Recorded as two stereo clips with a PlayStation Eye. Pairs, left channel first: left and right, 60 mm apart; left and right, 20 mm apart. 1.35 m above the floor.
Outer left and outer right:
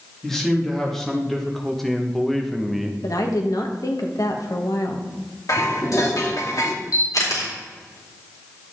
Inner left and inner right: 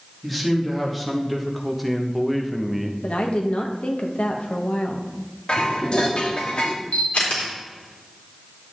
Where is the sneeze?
No sneeze in this recording.